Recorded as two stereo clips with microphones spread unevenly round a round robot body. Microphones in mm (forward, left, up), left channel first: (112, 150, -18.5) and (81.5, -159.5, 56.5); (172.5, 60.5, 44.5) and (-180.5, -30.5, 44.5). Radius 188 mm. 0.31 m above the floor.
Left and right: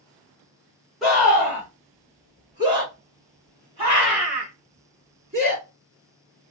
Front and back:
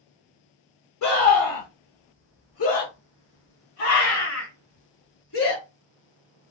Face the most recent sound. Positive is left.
turn(degrees=-25)